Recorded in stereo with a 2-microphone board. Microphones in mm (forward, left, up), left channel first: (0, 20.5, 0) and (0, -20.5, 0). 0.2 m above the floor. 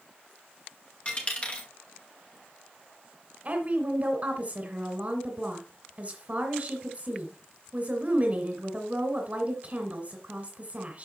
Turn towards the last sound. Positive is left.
turn(degrees=-35)  # may be behind; listen again after turning